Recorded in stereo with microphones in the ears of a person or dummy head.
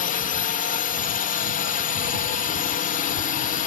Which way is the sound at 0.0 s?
40° left (ahead or behind).